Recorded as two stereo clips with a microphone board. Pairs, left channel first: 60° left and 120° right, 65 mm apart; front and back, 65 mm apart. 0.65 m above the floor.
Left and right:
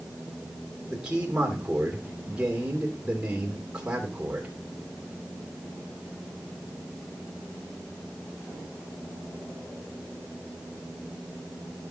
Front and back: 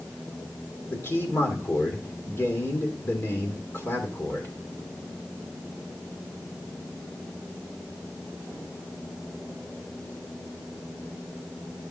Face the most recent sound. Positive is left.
turn(degrees=-45)